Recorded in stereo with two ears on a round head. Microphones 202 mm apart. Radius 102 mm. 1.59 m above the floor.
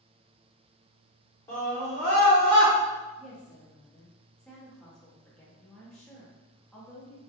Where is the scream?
10° left (ahead or behind), 0.9 m; by 2.7 s 55° right (ahead or behind), 0.7 m.